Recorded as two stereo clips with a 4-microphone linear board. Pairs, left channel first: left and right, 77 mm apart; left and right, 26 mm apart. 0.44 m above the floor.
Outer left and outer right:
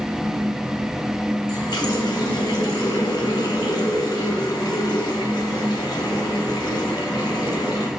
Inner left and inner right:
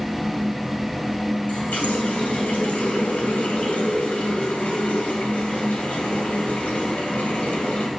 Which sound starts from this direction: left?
A running tap, at 1.5 s.